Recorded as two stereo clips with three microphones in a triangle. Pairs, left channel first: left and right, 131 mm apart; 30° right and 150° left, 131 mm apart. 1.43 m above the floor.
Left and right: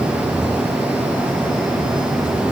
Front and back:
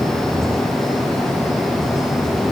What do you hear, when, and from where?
Only background noise.